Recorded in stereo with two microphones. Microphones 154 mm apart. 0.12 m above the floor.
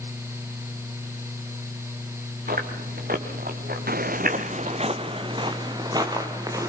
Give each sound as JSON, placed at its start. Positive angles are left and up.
{"t": 2.5, "sound": "chewing", "side_deg": -75, "distance_m": 3.0}
{"t": 3.9, "sound": "footsteps", "side_deg": -80, "distance_m": 1.2}